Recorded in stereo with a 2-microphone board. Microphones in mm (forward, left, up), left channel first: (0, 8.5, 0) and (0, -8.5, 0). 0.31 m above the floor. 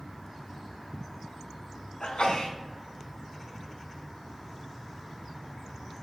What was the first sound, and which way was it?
A sneeze, 65° left (ahead or behind).